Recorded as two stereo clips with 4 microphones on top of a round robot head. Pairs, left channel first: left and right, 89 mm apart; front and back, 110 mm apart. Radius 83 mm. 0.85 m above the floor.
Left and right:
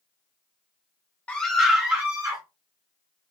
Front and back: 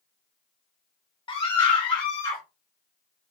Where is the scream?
20° left, 0.8 m; by 2.4 s 50° right, 1.1 m.